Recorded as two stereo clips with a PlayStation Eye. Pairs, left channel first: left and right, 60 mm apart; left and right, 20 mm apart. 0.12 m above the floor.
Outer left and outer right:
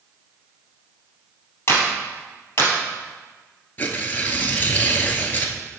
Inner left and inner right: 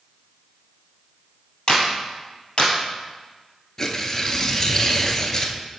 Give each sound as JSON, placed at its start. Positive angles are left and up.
{"t": 1.7, "sound": "a clap", "side_deg": 45, "distance_m": 2.5}
{"t": 3.8, "sound": "tearing paper", "side_deg": 30, "distance_m": 0.9}